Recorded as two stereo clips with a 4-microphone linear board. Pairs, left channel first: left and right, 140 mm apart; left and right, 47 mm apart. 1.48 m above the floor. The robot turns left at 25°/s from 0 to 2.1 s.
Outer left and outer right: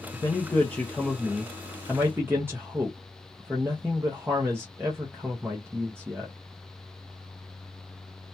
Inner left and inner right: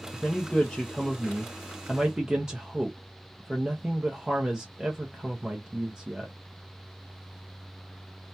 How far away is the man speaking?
About 0.5 m.